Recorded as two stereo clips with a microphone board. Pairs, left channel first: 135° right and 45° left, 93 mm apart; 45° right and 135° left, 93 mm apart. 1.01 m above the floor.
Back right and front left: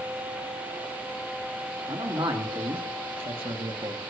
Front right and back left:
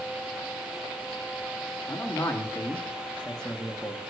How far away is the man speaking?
About 2.5 m.